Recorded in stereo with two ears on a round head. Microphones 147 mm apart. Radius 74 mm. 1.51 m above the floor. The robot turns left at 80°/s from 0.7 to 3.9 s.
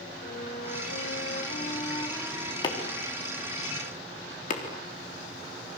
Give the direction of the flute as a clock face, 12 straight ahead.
8 o'clock.